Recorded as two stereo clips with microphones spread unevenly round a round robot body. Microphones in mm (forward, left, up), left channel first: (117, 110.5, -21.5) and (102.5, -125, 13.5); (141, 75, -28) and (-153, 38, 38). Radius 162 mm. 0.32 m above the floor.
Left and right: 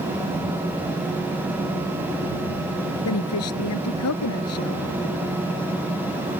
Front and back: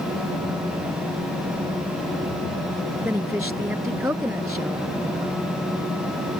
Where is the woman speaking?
105° left.